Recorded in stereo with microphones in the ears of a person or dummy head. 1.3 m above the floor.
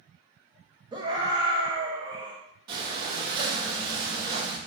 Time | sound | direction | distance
0.9 | a scream | 20° right (ahead or behind) | 0.9 m
2.7 | breathing | 25° right (ahead or behind) | 1.1 m